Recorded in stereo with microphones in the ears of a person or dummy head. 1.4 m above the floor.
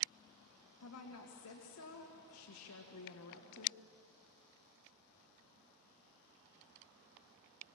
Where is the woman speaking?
80° left, 1.9 m.